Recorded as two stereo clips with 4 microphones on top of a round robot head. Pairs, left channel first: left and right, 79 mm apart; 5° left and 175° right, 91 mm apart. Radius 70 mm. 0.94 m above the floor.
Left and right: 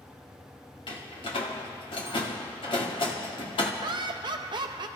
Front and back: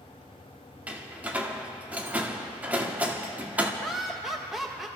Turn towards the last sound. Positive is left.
turn(degrees=-85)